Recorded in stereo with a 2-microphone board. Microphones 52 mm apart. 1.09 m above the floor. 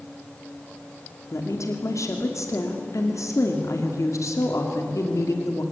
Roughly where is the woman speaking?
Left.